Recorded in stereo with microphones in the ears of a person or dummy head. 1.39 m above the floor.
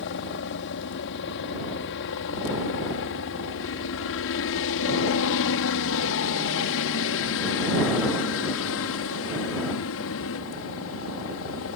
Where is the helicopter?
60° left (ahead or behind); by 11.8 s 65° left (ahead or behind).